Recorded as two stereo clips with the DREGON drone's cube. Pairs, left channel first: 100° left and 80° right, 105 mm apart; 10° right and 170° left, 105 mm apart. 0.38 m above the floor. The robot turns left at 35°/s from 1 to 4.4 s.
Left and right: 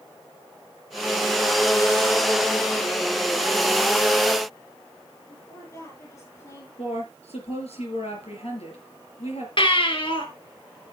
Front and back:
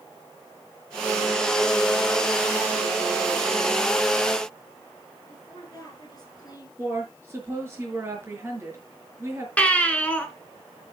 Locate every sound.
5.3 s a woman speaking: 45° left, 9.5 m
6.8 s a woman speaking: 105° left, 5 m
9.6 s a baby crying: 65° left, 1.9 m